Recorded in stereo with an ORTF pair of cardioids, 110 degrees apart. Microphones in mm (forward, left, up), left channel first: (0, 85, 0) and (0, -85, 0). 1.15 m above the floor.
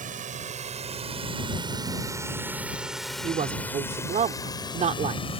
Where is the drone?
50° right; by 5.4 s 35° left.